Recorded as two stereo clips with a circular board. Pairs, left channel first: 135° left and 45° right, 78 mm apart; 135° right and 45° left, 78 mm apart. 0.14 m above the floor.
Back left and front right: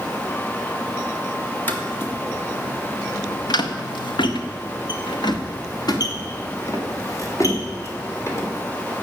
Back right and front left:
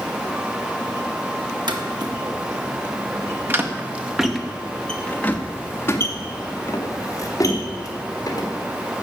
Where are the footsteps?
70° left, 2.5 m; by 8.5 s 175° right, 4.5 m.